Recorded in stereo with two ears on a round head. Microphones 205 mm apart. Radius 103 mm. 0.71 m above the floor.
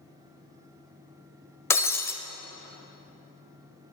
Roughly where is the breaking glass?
Centre.